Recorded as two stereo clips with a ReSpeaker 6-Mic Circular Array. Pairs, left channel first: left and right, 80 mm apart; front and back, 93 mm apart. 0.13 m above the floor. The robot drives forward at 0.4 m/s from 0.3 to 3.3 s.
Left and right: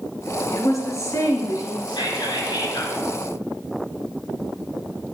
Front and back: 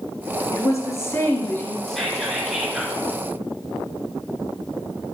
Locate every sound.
0.5 s a woman speaking: 45° left, 2.5 m; by 1.8 s 60° left, 2 m
1.9 s whispering: 85° left, 3.5 m; by 3.0 s 90° left, 3.5 m